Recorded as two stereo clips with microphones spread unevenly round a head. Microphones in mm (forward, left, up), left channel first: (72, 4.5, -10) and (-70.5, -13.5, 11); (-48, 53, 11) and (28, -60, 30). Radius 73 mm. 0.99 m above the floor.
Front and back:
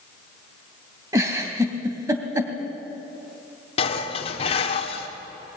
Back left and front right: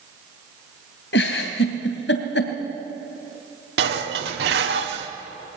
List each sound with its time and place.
1.1 s a giggle: 120° left, 2.5 m
3.8 s dishes clattering: 45° right, 1.8 m